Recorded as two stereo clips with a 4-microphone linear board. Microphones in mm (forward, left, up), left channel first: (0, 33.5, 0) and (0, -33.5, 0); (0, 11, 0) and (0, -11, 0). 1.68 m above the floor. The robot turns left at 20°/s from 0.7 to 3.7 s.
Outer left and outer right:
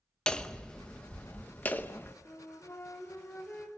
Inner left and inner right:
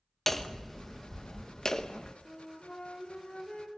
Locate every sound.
0.3 s hammering: 15° left (ahead or behind), 1.1 m; by 2.1 s 30° left (ahead or behind), 1.1 m
2.2 s a flute: 50° left (ahead or behind), 3.5 m; by 3.7 s 20° left (ahead or behind), 3.5 m